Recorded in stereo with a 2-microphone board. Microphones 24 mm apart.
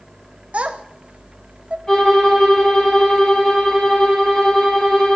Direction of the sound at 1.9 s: 20° left (ahead or behind).